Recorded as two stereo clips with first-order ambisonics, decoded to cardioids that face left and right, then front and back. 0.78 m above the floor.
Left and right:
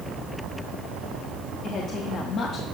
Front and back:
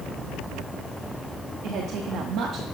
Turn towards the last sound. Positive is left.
turn(degrees=140)